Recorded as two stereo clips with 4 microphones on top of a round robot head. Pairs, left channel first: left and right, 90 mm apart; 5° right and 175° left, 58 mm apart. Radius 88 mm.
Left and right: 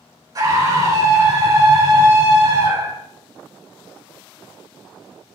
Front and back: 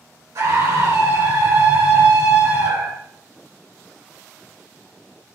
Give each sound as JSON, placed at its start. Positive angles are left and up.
{"t": 0.3, "sound": "a scream", "azimuth_deg": -140, "distance_m": 5.5}